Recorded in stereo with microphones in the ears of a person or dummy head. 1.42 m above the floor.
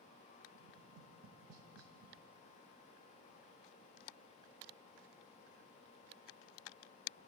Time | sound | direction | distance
0.5 | tapping | 85° right | 1.8 m